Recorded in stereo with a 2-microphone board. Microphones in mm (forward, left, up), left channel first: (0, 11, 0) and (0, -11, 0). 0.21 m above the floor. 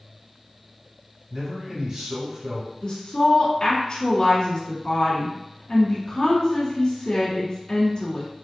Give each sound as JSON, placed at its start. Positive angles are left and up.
{"t": 1.3, "sound": "a man speaking", "side_deg": -30, "distance_m": 1.5}
{"t": 2.8, "sound": "a woman speaking", "side_deg": 45, "distance_m": 1.8}